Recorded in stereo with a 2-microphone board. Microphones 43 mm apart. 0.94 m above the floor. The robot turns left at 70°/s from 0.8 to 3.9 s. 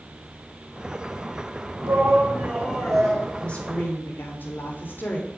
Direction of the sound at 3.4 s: 155° left.